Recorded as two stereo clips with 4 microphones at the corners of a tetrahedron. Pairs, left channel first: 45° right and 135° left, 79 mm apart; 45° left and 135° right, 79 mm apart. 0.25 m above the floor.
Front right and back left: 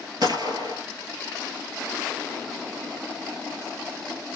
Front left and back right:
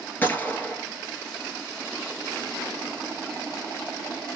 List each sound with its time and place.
0.2 s a gunshot: 110° left, 1.1 m